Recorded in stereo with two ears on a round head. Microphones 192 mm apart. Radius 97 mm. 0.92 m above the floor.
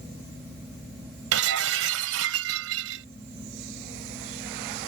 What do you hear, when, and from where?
1.3 s breaking glass: 70° right (ahead or behind)